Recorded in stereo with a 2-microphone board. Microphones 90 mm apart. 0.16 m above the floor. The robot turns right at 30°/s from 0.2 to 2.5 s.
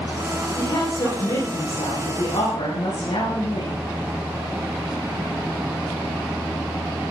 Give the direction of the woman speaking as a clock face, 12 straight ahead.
10 o'clock.